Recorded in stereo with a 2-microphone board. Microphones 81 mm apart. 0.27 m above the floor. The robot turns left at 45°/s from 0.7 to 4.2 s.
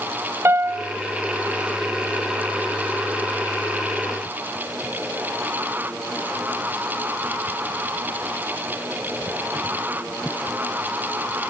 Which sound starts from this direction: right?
A piano, at 0.5 s.